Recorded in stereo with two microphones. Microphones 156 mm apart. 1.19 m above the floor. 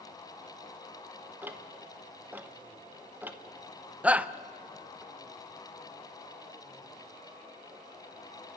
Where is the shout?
10° right (ahead or behind), 0.6 m.